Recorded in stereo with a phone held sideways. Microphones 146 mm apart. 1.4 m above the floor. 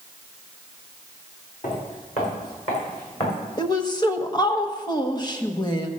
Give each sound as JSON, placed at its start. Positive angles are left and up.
{"t": 1.6, "sound": "footsteps", "side_deg": 55, "distance_m": 4.5}
{"t": 3.6, "sound": "a woman speaking", "side_deg": 30, "distance_m": 1.2}